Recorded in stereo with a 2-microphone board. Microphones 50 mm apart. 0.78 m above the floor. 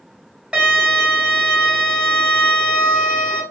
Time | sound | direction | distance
0.5 | a violin | 20° right (ahead or behind) | 2.0 m